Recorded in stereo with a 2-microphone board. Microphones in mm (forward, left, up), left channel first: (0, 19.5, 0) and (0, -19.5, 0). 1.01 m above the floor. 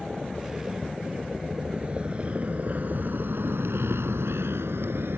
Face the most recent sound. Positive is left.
turn(degrees=-65)  # may be behind; listen again after turning